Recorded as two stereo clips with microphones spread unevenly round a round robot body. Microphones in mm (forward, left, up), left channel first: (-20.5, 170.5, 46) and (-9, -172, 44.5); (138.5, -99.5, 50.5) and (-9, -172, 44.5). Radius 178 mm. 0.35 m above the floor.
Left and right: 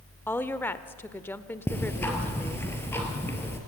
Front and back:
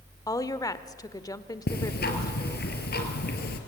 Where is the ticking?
10° left, 2.5 m.